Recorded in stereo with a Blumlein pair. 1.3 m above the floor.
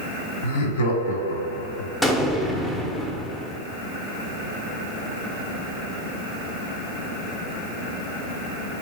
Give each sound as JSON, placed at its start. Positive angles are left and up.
{"t": 0.4, "sound": "laughter", "azimuth_deg": 60, "distance_m": 1.1}
{"t": 2.0, "sound": "an explosion", "azimuth_deg": 10, "distance_m": 0.7}